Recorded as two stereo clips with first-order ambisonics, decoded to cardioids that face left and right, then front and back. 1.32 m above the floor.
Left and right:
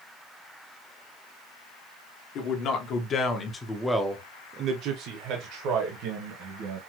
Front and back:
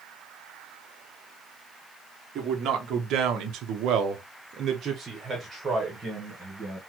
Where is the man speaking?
130° left, 1.3 m; by 6.8 s 90° right, 1.7 m.